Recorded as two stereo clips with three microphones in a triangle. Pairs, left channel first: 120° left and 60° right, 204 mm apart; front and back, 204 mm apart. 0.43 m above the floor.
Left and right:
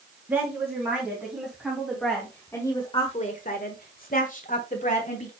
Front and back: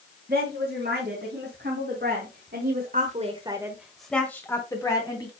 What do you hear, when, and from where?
0.3 s a woman speaking: 140° right, 4.5 m; by 5.3 s 65° left, 3.5 m